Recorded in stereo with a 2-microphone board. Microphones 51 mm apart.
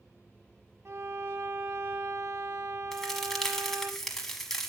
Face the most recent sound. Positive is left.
turn(degrees=10)  # may be behind; listen again after turning